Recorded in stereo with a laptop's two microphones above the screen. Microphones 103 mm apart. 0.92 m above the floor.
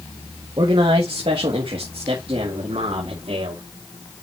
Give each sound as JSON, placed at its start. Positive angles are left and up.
{"t": 0.6, "sound": "a man speaking", "side_deg": -55, "distance_m": 1.4}